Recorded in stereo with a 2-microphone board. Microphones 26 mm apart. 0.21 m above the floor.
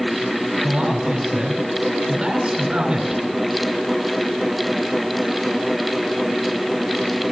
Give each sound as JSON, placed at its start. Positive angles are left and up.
{"t": 0.6, "sound": "a man speaking", "side_deg": -45, "distance_m": 3.5}